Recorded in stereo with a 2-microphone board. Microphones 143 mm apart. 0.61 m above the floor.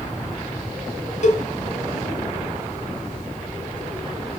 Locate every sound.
1.2 s a cowbell: 60° left (ahead or behind), 2.5 m